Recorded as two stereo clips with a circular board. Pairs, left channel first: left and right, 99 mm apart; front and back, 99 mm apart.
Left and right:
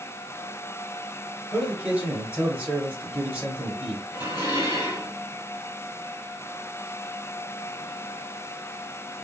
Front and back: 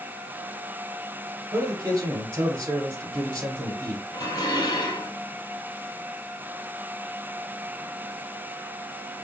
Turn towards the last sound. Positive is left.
turn(degrees=45)